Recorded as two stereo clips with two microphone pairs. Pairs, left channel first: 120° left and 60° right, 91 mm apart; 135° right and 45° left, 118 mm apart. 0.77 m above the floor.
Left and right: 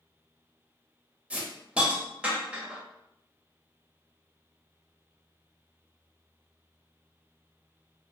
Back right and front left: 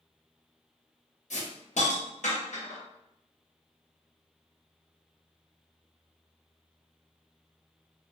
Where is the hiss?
140° right, 0.7 m.